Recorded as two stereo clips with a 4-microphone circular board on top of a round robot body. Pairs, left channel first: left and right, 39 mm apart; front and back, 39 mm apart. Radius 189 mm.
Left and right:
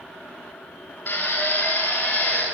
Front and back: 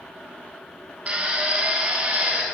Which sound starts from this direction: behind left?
A drill, at 1.1 s.